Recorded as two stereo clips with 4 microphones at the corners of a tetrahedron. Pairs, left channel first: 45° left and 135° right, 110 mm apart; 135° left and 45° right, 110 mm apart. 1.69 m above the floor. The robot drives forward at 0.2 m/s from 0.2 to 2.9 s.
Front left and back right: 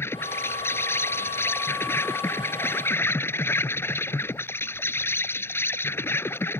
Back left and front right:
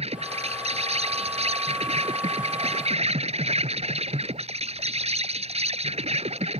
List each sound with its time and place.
0.0 s an insect: 25° right